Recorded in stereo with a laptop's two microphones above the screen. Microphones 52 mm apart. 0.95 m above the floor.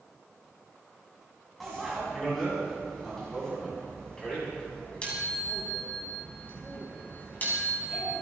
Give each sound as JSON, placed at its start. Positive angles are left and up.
{"t": 1.6, "sound": "a bicycle bell", "side_deg": 0, "distance_m": 6.0}